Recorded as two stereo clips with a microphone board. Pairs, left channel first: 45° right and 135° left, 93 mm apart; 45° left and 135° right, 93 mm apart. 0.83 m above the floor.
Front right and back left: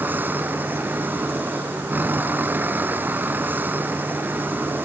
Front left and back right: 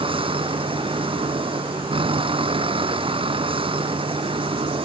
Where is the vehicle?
155° right.